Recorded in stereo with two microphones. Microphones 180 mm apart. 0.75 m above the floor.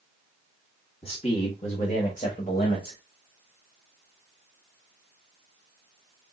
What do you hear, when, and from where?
1.0 s a man speaking: 35° left (ahead or behind), 1.3 m; by 3.0 s 50° left (ahead or behind), 2.0 m